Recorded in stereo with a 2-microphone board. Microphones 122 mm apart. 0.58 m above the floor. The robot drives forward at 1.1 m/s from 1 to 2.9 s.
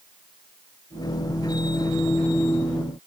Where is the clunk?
No clunk in this recording.